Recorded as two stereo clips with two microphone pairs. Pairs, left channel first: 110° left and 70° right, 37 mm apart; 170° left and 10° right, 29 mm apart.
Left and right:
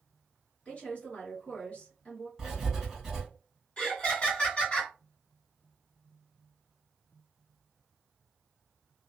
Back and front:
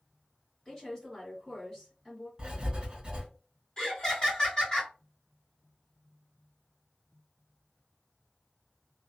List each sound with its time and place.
0.7 s a woman speaking: 105° left, 1.6 m
2.4 s writing: straight ahead, 1.7 m
3.8 s laughter: 135° left, 1.7 m